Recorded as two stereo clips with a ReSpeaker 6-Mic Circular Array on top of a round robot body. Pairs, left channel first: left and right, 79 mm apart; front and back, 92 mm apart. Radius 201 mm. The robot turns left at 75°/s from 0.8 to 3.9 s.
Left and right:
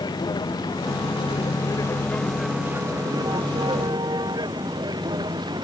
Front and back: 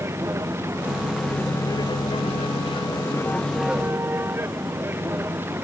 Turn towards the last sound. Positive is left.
turn(degrees=-115)